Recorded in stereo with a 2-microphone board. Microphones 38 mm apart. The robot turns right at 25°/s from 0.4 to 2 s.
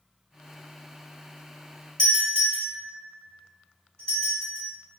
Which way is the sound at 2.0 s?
25° left (ahead or behind).